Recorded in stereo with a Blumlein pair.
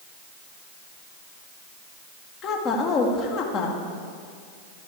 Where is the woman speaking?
30° left, 1.6 m.